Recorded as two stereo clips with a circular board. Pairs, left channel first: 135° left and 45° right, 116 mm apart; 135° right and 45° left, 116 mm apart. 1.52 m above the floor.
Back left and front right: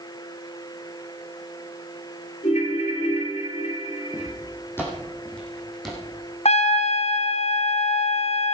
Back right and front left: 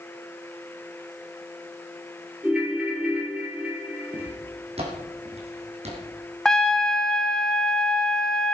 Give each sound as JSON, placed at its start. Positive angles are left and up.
{"t": 2.4, "sound": "a ringtone", "azimuth_deg": 125, "distance_m": 2.5}
{"t": 4.1, "sound": "footsteps", "azimuth_deg": 75, "distance_m": 3.5}
{"t": 6.5, "sound": "a trumpet", "azimuth_deg": 140, "distance_m": 0.9}